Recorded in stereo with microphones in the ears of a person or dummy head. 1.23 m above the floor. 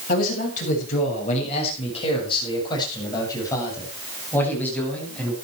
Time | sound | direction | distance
0.1 | a man speaking | 55° left (ahead or behind) | 7.5 m